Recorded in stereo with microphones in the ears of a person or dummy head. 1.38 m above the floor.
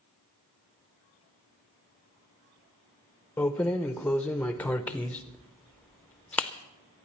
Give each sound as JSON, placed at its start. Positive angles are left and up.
{"t": 3.4, "sound": "keys jangling", "side_deg": 10, "distance_m": 0.6}